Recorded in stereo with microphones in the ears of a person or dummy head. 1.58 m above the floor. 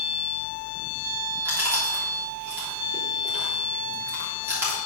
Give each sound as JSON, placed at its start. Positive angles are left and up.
{"t": 1.4, "sound": "chewing", "side_deg": -15, "distance_m": 3.0}